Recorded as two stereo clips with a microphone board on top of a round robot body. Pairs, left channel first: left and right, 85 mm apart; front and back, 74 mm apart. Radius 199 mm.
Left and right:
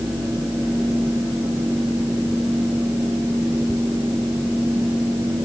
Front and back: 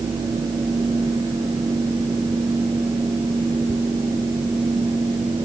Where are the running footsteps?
I don't hear running footsteps.